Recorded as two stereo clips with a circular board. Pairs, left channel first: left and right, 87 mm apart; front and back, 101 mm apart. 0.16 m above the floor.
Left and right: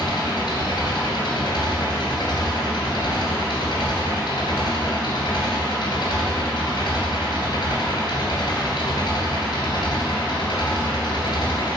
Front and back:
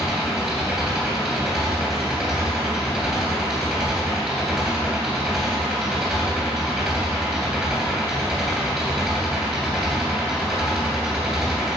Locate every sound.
0.0 s an engine running: 95° left, 2.5 m